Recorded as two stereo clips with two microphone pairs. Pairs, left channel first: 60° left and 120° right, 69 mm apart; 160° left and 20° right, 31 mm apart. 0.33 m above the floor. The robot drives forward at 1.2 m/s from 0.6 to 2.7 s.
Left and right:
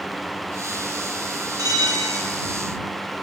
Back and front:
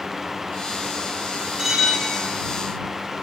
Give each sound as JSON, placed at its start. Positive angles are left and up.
{"t": 1.6, "sound": "a bell", "azimuth_deg": -100, "distance_m": 1.5}